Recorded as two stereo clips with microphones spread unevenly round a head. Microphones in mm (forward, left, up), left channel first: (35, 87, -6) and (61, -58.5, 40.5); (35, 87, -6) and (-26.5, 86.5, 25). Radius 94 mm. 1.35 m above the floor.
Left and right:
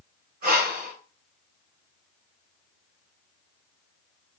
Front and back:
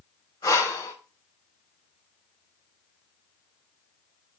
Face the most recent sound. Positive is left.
turn(degrees=-60)